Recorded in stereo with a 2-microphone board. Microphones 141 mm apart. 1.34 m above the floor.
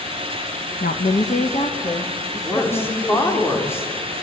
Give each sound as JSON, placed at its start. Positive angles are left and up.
{"t": 0.8, "sound": "a woman speaking", "side_deg": 80, "distance_m": 1.5}
{"t": 2.4, "sound": "a woman speaking", "side_deg": 15, "distance_m": 4.5}